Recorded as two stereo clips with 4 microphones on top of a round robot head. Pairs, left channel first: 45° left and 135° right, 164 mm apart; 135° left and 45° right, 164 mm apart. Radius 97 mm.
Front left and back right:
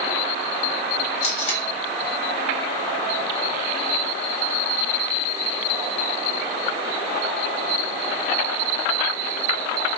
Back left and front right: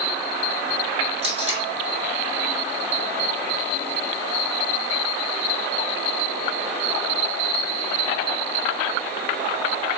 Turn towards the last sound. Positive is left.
turn(degrees=0)